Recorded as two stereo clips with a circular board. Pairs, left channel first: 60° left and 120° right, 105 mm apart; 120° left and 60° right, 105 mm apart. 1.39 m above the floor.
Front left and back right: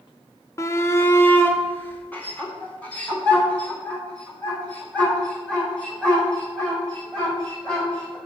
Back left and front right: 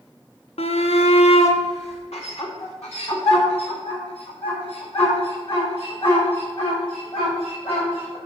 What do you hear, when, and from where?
0.6 s a shout: 120° left, 0.8 m; by 8.2 s 140° left, 7 m